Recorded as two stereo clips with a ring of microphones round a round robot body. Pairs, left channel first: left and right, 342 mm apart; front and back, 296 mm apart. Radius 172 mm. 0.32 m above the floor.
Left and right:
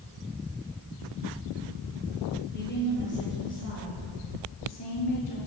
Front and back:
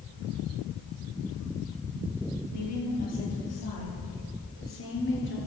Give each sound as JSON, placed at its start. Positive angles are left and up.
{"t": 2.5, "sound": "a woman speaking", "azimuth_deg": 30, "distance_m": 7.5}